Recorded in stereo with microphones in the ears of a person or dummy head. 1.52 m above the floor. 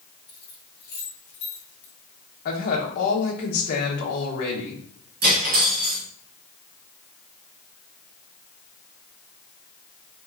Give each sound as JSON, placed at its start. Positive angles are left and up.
{"t": 0.3, "sound": "keys jangling", "side_deg": 20, "distance_m": 2.5}
{"t": 2.5, "sound": "a woman speaking", "side_deg": 50, "distance_m": 1.4}
{"t": 5.2, "sound": "cutlery clinking", "side_deg": -55, "distance_m": 1.7}